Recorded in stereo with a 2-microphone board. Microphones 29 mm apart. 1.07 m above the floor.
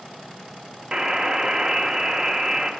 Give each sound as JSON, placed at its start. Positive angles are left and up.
{"t": 0.9, "sound": "a buzzer", "side_deg": -30, "distance_m": 0.8}